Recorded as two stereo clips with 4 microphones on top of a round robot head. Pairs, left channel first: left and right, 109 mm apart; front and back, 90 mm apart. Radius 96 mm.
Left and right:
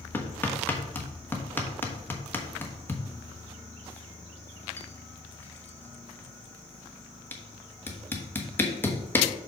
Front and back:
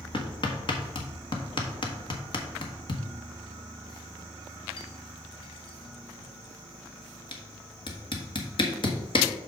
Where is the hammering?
20° left, 1.3 m.